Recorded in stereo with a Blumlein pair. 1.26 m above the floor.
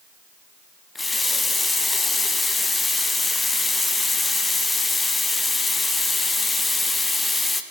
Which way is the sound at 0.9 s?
10° left.